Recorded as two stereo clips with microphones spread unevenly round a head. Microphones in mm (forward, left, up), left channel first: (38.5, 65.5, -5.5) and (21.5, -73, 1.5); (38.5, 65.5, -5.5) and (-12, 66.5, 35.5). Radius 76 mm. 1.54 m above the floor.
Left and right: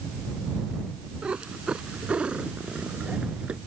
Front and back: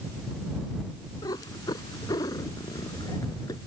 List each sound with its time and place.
1.2 s a cat meowing: 15° right